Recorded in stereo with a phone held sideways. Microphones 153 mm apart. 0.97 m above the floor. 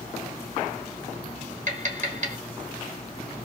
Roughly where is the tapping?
Right.